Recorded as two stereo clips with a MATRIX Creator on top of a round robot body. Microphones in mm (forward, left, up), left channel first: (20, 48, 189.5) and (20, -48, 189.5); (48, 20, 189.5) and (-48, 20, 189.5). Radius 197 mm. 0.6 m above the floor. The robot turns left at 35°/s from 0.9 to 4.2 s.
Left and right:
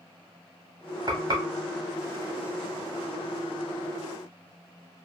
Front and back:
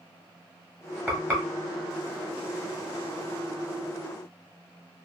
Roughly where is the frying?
Right.